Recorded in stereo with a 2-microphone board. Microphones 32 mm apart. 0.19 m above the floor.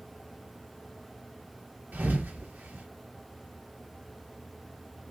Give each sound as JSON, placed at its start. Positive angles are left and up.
{"t": 1.9, "sound": "a thud", "side_deg": -60, "distance_m": 1.6}